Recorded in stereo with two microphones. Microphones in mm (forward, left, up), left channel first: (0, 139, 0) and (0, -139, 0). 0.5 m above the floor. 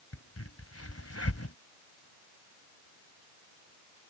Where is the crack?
60° left (ahead or behind).